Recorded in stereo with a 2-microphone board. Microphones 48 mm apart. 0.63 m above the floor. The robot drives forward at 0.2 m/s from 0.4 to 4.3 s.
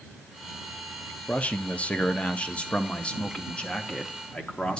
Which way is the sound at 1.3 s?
30° left (ahead or behind).